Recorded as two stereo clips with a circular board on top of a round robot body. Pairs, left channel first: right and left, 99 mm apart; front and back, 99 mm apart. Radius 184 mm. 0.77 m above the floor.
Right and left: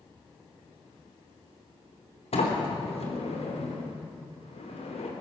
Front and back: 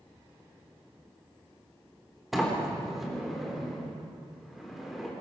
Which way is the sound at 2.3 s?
95° right.